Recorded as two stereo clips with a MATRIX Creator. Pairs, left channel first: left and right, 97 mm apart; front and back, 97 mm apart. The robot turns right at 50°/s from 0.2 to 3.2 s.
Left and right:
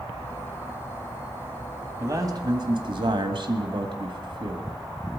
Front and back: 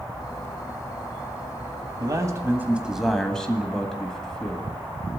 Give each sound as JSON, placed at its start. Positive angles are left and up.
{"t": 2.0, "sound": "a man speaking", "azimuth_deg": -140, "distance_m": 1.5}